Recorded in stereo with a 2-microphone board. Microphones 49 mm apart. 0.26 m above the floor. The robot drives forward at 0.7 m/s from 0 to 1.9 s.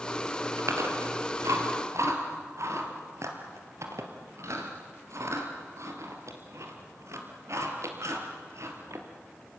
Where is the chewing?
80° right, 3 m; by 9.1 s 75° right (ahead or behind), 3 m.